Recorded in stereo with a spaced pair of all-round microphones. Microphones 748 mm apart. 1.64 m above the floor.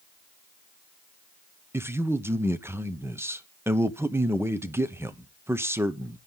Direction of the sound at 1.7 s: 5° right (ahead or behind).